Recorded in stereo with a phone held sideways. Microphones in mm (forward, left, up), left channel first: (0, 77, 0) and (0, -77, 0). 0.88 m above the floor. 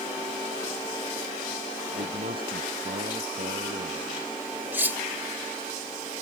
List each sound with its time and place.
1.9 s a man speaking: 75° right (ahead or behind)
4.7 s cutlery clinking: 15° right (ahead or behind)